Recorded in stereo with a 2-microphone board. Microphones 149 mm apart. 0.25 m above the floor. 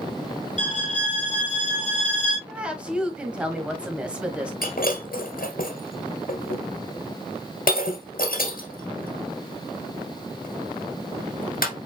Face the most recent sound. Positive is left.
turn(degrees=80)